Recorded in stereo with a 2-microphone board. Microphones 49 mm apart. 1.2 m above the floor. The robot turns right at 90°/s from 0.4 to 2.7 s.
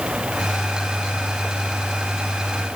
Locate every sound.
Only background noise.